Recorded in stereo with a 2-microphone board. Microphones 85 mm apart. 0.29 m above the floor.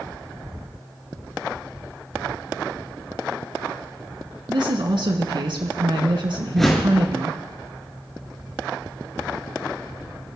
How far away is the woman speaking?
About 2.5 m.